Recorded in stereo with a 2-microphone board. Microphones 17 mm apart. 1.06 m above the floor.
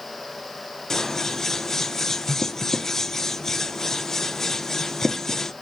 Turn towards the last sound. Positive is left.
turn(degrees=30)  # may be behind; listen again after turning